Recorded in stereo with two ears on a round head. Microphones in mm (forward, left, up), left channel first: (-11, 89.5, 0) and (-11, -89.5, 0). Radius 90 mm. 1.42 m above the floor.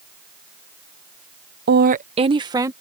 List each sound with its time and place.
1.7 s a woman speaking: 55° right (ahead or behind); by 2.7 s 15° right (ahead or behind)